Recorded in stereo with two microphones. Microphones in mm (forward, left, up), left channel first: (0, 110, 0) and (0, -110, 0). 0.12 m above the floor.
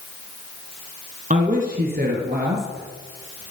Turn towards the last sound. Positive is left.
turn(degrees=-55)  # may be behind; listen again after turning